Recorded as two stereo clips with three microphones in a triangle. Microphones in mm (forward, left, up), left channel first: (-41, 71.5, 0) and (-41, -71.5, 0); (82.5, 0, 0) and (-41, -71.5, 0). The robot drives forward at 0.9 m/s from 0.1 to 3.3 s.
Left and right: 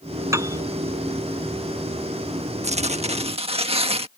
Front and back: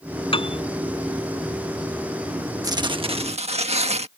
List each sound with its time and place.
0.3 s a piano: 20° right
2.6 s tearing paper: 95° right; by 4.1 s 125° right